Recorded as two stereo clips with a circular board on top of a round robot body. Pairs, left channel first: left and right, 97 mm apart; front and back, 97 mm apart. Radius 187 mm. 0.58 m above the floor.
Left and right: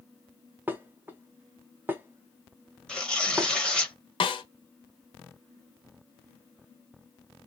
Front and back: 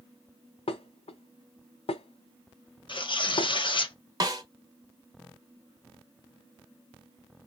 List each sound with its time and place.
0.7 s dishes clattering: 20° right, 0.7 m
2.9 s tearing paper: 10° left, 1.1 m
4.2 s a snare drum: 130° left, 0.7 m